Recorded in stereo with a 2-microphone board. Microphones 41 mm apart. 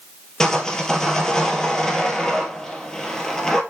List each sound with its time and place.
0.4 s sawing: 15° left (ahead or behind), 1.7 m